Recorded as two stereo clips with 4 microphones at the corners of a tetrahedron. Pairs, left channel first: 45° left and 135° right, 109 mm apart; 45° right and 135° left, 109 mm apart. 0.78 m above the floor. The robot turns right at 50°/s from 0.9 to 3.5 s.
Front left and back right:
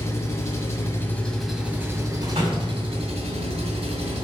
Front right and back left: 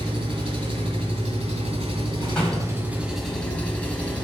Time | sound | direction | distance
0.0 | an engine running | 110° left | 1.6 m
2.2 | a door slam | 135° right | 3 m